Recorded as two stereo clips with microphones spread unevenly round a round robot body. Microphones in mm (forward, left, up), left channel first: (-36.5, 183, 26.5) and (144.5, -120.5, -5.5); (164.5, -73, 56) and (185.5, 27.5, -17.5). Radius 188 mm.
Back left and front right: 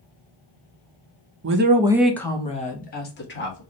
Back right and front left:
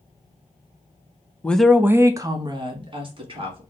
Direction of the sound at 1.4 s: 10° right.